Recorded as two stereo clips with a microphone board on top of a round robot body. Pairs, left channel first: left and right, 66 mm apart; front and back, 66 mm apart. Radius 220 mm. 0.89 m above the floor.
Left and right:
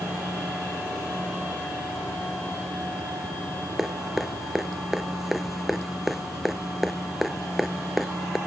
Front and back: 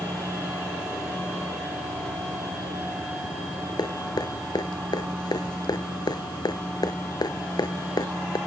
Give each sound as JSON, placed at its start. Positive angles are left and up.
{"t": 3.8, "sound": "dripping", "azimuth_deg": -5}